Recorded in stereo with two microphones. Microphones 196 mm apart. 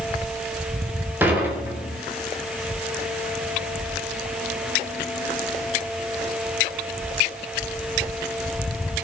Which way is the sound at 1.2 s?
10° right (ahead or behind).